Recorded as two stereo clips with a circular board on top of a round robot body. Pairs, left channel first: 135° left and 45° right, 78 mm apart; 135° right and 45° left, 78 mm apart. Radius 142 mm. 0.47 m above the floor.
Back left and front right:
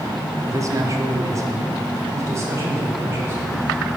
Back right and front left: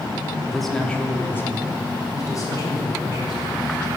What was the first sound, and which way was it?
A man speaking, 35° right.